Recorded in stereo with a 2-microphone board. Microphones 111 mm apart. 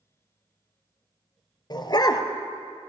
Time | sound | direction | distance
1.7 | a dog barking | 40° left (ahead or behind) | 1.0 m